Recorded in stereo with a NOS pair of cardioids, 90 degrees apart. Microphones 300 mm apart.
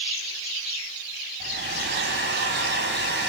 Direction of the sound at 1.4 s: 35° right.